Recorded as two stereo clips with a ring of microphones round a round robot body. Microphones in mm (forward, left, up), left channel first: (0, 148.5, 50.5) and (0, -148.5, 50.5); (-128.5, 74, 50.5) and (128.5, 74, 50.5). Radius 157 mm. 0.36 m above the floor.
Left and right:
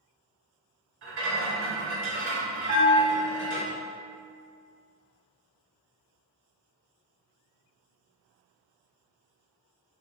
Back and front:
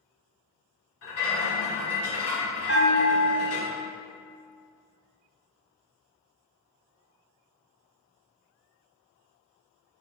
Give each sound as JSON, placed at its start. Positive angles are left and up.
{"t": 1.0, "sound": "a rattle", "azimuth_deg": -140, "distance_m": 1.2}
{"t": 2.7, "sound": "a bell", "azimuth_deg": -145, "distance_m": 1.9}